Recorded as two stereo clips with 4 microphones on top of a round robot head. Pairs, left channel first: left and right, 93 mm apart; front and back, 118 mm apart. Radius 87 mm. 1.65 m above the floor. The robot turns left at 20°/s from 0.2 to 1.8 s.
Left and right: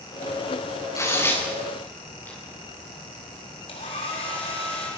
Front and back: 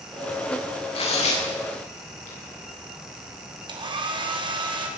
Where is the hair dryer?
135° left, 4.5 m.